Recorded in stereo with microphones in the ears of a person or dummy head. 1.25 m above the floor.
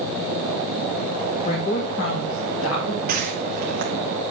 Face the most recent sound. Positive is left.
turn(degrees=-50)  # may be behind; listen again after turning